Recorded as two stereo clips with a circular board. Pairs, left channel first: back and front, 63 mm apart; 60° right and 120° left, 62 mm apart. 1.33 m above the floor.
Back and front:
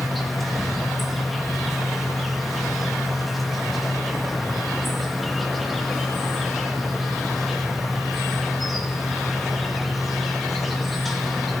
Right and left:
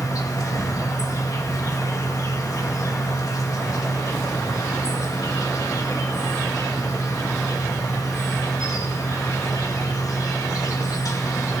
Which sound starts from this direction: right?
An insect, at 0.0 s.